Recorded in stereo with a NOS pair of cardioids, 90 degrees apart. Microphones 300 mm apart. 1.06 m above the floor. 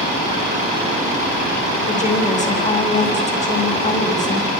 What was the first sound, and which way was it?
A woman speaking, 25° left.